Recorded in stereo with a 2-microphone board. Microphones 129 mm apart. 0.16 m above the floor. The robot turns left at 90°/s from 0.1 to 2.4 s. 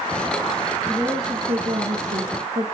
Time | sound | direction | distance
0.9 | a woman speaking | 10° left | 4 m